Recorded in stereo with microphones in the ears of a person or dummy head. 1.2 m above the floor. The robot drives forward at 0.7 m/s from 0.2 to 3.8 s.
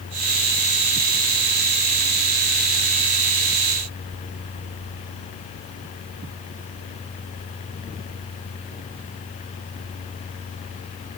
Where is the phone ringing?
No phone ringing in this recording.